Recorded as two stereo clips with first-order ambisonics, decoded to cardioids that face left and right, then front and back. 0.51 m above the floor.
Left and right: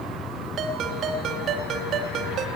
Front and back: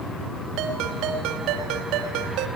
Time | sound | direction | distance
0.6 | a ringtone | 145° right | 2.5 m